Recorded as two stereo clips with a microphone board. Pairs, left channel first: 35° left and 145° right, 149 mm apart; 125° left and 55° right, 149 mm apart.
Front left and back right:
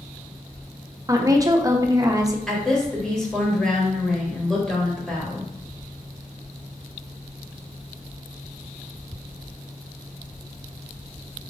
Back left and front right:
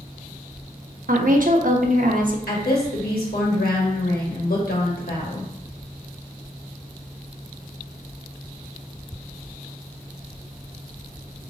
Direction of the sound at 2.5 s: 120° left.